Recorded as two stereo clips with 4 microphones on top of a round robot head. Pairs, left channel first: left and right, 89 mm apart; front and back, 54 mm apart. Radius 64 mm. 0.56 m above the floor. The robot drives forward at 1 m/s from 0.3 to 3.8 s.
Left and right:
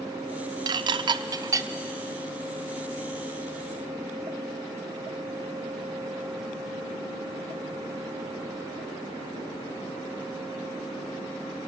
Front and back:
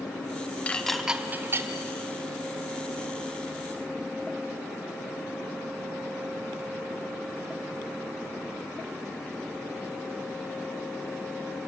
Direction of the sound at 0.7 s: 65° right.